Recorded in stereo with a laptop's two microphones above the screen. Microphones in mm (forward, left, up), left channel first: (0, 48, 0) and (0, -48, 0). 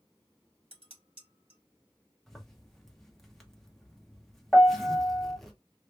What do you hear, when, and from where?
0.7 s dishes clattering: 85° right, 1.6 m
2.3 s a zipper: 5° left (ahead or behind), 1.0 m
4.5 s a piano: 10° left (ahead or behind), 0.8 m